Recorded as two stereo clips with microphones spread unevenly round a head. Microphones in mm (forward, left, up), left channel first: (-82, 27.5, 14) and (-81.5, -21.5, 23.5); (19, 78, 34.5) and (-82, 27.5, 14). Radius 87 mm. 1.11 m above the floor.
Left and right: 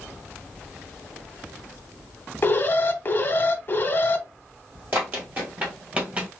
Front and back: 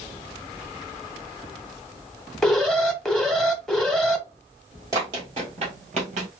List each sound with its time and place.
2.4 s an alarm: 120° left, 0.9 m
4.9 s running footsteps: 75° right, 1.5 m; by 6.3 s 130° right, 1.5 m